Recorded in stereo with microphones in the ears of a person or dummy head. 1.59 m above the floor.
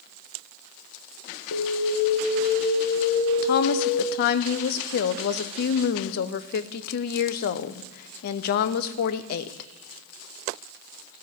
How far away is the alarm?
About 1.5 m.